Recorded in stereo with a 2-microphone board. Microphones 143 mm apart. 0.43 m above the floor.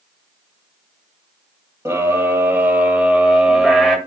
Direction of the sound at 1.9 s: 20° right (ahead or behind).